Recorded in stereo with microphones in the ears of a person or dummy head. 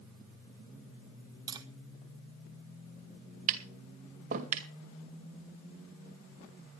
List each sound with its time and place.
1.5 s tapping: 20° right (ahead or behind), 1.4 m
3.5 s tapping: 45° right (ahead or behind), 2 m